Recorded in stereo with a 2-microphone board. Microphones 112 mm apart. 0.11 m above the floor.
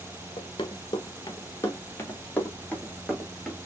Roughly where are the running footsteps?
Left.